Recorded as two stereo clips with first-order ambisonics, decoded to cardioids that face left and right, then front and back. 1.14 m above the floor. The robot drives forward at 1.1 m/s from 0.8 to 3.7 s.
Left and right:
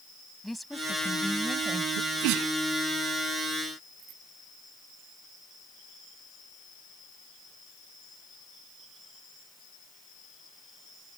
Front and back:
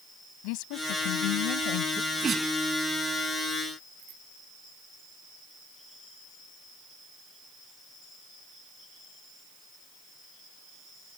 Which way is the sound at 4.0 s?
140° right.